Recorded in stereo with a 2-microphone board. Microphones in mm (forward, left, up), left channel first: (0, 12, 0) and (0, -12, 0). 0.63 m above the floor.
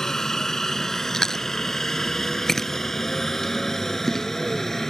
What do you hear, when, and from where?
0.0 s a helicopter: 20° left (ahead or behind); by 4.9 s 15° left (ahead or behind)
1.1 s chewing: 15° left (ahead or behind)